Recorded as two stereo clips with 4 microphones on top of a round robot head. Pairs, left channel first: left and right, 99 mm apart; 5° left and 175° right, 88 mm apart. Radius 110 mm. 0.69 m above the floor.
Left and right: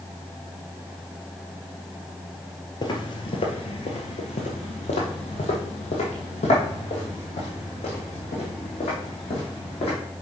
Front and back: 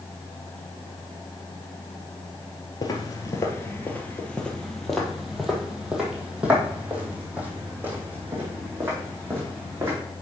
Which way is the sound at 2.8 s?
45° left.